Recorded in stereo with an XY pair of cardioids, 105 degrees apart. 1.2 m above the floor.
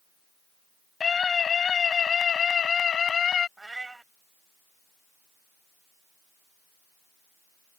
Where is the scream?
40° left; by 3.5 s 45° left.